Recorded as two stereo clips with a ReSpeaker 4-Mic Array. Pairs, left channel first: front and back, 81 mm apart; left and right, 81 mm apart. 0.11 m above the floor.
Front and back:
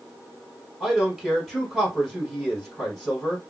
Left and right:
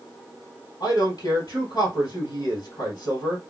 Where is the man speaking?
95° left, 2 m.